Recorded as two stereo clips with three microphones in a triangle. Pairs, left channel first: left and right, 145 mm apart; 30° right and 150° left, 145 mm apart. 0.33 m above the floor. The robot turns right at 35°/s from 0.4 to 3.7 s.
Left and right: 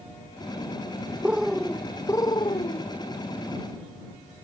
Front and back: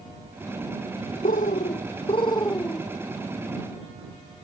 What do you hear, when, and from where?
1.2 s a bird: 10° right; by 2.9 s 50° left